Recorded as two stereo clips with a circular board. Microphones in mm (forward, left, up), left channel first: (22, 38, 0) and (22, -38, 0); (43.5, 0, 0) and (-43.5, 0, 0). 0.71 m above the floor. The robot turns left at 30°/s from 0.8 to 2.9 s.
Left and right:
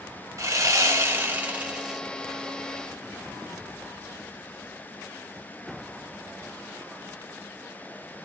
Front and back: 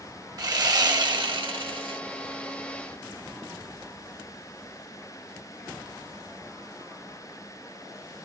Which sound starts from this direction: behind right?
Sawing, at 0.4 s.